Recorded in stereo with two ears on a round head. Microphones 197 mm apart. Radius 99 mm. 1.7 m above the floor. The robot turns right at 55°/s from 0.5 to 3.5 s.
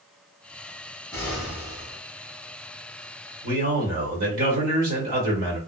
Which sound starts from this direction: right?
A man speaking, at 3.4 s.